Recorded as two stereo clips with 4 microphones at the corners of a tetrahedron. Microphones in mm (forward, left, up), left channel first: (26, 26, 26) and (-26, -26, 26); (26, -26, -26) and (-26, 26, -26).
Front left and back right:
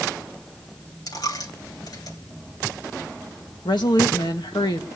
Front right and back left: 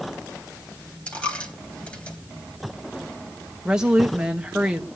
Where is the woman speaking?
55° left, 1.9 m.